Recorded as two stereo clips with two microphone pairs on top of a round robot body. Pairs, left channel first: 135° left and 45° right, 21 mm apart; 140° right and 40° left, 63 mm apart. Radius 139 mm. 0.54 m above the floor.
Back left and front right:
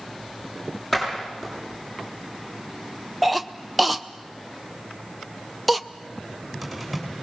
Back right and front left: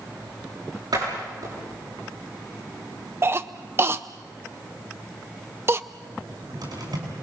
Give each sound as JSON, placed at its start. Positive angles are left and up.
{"t": 0.9, "sound": "a door slam", "azimuth_deg": 55, "distance_m": 8.5}
{"t": 3.2, "sound": "a cough", "azimuth_deg": 25, "distance_m": 0.7}
{"t": 6.2, "sound": "a cupboard door", "azimuth_deg": 45, "distance_m": 6.5}